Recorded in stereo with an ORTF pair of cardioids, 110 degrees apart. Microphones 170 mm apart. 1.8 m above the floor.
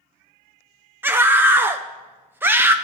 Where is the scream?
10° right, 0.7 m.